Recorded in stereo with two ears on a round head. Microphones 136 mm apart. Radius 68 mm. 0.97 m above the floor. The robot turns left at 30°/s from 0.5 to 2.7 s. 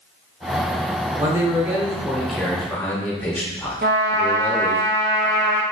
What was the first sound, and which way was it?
A man speaking, 145° right.